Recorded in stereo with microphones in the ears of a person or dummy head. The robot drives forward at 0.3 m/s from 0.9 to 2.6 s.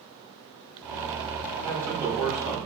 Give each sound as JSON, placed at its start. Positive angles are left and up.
{"t": 1.6, "sound": "a man speaking", "side_deg": -20, "distance_m": 1.1}